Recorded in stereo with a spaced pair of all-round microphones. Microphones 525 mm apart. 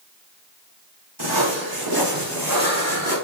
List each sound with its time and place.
1.2 s footsteps: 45° right (ahead or behind), 4.5 m; by 3.1 s 35° right (ahead or behind), 4.5 m